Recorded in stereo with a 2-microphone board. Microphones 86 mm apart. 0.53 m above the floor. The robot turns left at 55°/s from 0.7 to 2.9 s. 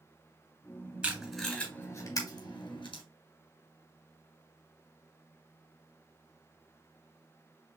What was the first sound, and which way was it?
Tape being pulled, 15° right (ahead or behind).